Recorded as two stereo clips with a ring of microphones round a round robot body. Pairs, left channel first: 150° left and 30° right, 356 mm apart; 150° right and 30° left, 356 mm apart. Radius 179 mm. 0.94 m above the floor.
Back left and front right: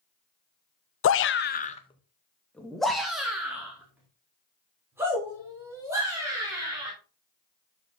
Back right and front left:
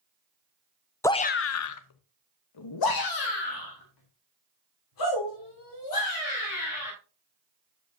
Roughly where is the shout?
Behind left.